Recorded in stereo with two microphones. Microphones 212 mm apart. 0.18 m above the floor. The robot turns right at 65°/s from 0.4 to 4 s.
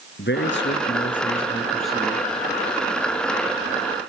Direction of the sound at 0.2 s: 85° left.